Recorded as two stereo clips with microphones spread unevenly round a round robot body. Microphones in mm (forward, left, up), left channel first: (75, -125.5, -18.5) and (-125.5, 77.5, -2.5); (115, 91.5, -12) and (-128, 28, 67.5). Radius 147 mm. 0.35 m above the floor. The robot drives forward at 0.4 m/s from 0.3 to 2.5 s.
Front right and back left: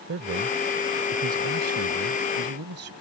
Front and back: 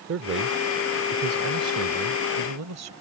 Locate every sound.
0.1 s a man speaking: 155° left; by 2.9 s 170° left